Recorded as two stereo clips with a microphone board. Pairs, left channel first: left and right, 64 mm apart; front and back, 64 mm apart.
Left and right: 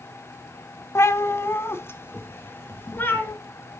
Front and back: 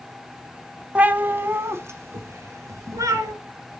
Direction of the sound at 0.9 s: 115° left.